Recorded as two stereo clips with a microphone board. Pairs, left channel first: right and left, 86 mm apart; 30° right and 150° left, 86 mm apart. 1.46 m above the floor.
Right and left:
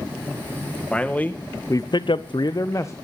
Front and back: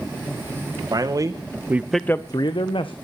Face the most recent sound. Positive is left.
turn(degrees=-30)